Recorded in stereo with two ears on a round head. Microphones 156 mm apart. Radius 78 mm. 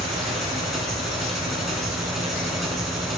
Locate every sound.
0.0 s an engine running: centre (ahead or behind), 4.5 m